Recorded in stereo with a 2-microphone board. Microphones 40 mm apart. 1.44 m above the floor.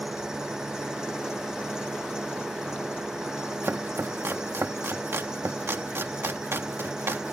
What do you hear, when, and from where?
0.0 s an engine running: 10° right (ahead or behind)
3.6 s chopping: 80° right